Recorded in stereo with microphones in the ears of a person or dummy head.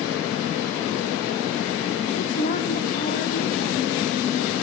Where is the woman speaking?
45° left (ahead or behind), 1.1 m.